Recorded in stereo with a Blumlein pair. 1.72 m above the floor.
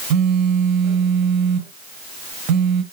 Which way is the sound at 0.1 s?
40° right.